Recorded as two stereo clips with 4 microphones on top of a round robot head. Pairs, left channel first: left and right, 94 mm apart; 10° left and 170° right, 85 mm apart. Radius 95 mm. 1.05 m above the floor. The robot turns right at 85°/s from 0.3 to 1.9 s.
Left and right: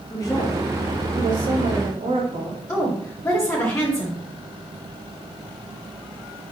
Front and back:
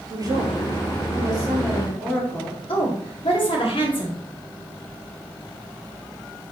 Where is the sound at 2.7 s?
30° left, 3.5 m.